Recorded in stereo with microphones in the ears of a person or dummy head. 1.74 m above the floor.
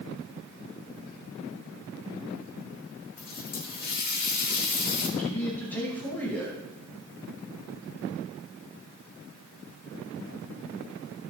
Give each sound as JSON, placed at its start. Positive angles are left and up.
{"t": 3.2, "sound": "a running tap", "side_deg": 45, "distance_m": 1.4}
{"t": 5.2, "sound": "a man speaking", "side_deg": 5, "distance_m": 2.0}